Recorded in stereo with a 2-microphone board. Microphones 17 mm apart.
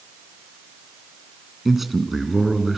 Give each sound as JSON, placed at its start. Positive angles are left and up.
{"t": 1.6, "sound": "a man speaking", "side_deg": -10, "distance_m": 2.0}